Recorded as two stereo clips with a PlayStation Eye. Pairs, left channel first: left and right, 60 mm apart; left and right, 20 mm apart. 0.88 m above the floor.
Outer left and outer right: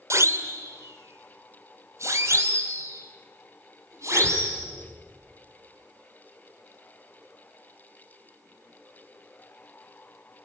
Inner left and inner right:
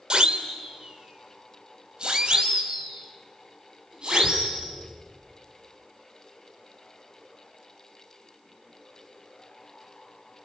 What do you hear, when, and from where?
0.1 s a siren: 50° right (ahead or behind), 3 m; by 4.6 s 55° right (ahead or behind), 7 m